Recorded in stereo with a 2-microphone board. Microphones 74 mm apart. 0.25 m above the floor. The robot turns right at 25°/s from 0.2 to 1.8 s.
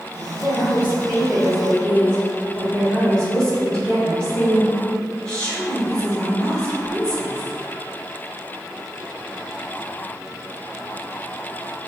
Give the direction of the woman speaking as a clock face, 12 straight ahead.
8 o'clock.